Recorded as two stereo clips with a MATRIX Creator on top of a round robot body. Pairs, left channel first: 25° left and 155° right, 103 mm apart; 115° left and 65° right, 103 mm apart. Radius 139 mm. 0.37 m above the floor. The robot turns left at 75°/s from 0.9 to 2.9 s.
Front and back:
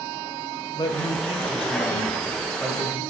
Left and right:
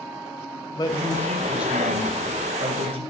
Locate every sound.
0.7 s a man speaking: 65° left, 3 m; by 3.0 s 85° right, 3 m